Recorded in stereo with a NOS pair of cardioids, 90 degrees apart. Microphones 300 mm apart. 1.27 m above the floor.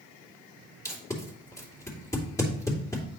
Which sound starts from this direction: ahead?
Tape being pulled, at 0.8 s.